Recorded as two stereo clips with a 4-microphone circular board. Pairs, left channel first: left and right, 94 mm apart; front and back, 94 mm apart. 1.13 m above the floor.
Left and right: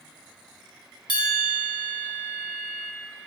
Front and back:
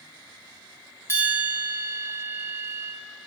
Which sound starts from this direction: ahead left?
A bell, at 1.1 s.